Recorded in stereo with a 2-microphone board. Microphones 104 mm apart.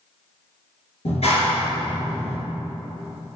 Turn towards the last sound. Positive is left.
turn(degrees=70)  # may be behind; listen again after turning